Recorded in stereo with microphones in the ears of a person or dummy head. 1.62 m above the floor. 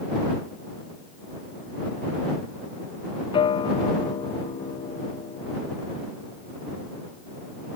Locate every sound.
3.3 s a guitar: 25° left (ahead or behind)